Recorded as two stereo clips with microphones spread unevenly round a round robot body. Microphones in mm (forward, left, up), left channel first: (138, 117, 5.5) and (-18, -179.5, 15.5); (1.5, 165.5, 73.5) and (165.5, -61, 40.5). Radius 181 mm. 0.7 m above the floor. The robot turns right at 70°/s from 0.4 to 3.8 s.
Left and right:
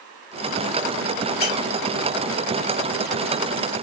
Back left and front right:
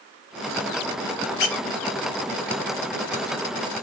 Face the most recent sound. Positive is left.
turn(degrees=-75)